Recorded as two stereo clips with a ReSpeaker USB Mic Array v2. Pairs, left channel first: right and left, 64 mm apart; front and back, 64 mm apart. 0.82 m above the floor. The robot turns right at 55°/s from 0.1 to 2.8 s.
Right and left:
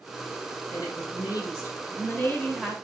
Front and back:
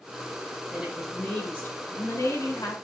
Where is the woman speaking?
105° right, 5.5 m; by 2.8 s 5° left, 5.5 m.